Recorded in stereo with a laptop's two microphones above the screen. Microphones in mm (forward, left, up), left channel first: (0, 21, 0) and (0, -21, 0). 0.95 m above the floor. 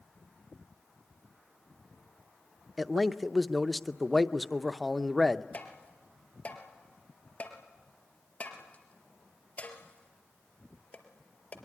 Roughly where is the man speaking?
Centre.